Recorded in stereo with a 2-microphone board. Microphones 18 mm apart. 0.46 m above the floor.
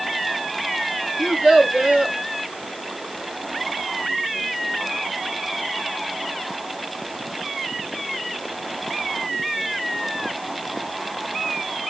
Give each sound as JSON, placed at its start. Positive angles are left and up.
{"t": 1.2, "sound": "a child speaking", "side_deg": -75, "distance_m": 4.5}